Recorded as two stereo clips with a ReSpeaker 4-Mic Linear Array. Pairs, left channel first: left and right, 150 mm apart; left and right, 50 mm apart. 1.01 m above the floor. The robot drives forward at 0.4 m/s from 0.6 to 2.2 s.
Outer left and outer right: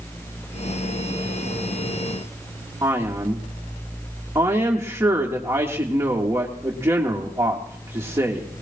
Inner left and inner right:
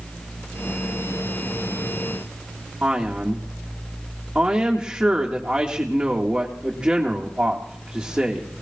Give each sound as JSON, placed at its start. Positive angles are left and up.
{"t": 2.8, "sound": "a man speaking", "side_deg": -15, "distance_m": 1.8}